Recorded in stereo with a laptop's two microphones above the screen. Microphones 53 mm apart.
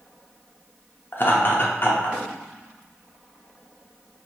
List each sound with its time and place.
1.1 s laughter: 45° left (ahead or behind), 0.6 m